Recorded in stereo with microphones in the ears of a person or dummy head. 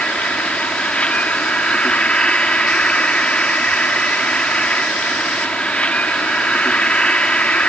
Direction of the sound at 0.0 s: Centre (ahead or behind).